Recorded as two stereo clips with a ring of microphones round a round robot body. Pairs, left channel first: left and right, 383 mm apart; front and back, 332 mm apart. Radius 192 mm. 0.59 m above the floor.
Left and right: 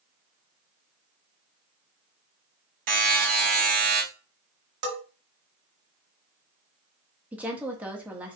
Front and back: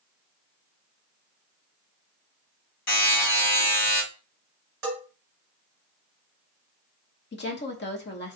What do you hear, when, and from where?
2.9 s a buzzer: 50° right, 3 m
4.8 s a bell: 115° right, 2 m
7.3 s a woman speaking: 5° right, 1.0 m